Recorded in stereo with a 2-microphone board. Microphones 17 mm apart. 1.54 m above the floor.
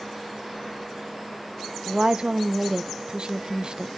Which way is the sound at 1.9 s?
45° right (ahead or behind).